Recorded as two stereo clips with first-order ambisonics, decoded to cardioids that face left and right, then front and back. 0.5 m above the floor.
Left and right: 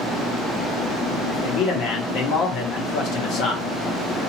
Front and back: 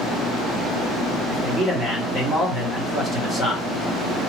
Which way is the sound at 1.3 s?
105° left.